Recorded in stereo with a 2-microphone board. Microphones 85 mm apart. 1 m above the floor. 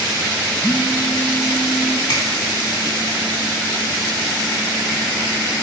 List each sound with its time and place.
0.6 s a phone buzzing: 10° left (ahead or behind), 4 m
2.1 s a finger snap: 55° left (ahead or behind), 2.0 m